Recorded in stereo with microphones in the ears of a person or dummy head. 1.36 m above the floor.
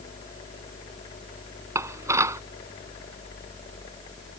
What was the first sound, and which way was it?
Dishes clattering, 20° right (ahead or behind).